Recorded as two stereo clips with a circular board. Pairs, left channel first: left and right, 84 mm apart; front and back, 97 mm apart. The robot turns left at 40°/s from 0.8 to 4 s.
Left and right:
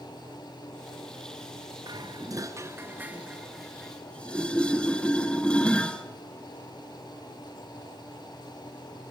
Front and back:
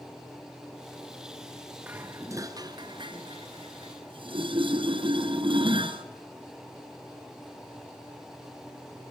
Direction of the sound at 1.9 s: 110° right.